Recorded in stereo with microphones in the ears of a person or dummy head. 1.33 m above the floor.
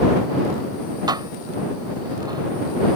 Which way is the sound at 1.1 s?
20° right (ahead or behind).